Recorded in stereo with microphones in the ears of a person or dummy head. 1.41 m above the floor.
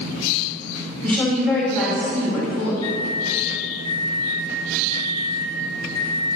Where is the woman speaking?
10° left (ahead or behind), 2.5 m.